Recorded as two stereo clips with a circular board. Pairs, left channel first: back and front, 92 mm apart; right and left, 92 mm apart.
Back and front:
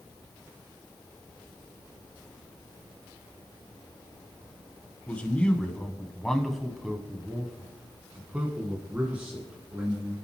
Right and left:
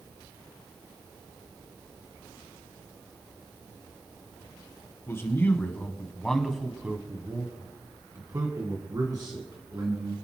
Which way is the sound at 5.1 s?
120° right.